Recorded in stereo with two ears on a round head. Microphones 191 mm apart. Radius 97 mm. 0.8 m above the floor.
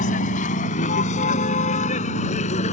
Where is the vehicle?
35° left (ahead or behind); by 2.7 s 30° left (ahead or behind).